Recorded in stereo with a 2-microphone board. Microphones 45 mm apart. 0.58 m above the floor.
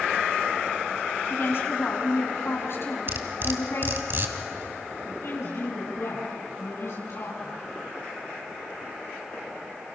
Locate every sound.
1.3 s a woman speaking: 60° left (ahead or behind), 6 m
3.1 s cutlery clinking: 50° right (ahead or behind), 2 m
5.0 s a woman speaking: 75° left (ahead or behind), 7 m